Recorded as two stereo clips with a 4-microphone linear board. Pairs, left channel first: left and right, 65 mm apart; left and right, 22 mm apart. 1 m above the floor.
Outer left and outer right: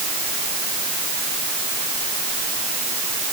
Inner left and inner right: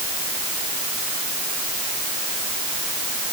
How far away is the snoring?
I don't hear snoring.